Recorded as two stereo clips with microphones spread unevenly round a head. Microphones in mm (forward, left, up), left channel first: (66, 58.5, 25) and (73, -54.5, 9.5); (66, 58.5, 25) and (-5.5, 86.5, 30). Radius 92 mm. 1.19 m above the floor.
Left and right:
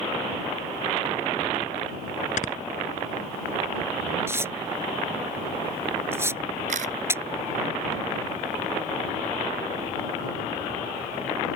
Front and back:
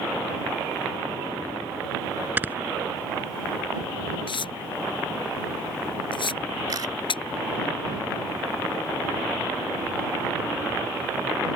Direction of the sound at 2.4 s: 95° left.